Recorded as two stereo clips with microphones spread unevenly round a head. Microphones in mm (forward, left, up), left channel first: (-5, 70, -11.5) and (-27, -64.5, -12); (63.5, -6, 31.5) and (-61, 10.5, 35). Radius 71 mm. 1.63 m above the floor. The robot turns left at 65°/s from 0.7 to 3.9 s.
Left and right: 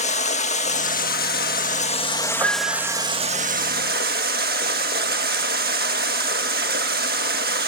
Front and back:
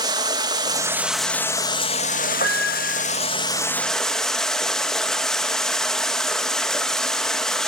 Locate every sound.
0.0 s running water: 115° left, 1.9 m; by 7.7 s 95° right, 1.9 m
2.4 s a piano: 30° right, 6 m; by 3.0 s 65° right, 6 m